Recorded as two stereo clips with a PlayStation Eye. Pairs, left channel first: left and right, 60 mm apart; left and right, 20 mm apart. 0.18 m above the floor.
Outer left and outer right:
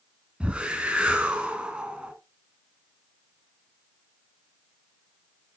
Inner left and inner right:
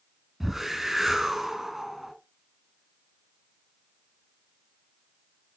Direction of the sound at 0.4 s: 15° right (ahead or behind).